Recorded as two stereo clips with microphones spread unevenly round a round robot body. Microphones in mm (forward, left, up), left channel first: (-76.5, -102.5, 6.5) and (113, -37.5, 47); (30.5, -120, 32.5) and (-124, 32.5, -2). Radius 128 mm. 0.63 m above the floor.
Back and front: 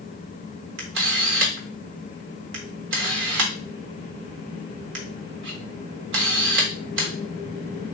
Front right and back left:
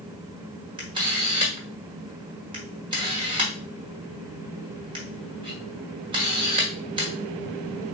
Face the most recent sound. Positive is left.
turn(degrees=65)